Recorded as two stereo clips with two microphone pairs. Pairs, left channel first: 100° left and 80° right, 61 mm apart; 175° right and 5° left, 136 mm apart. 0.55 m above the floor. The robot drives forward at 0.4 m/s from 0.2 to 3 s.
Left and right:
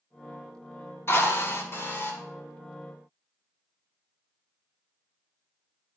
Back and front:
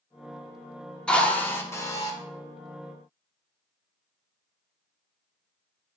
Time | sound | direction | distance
1.1 | a drill | 105° left | 1.0 m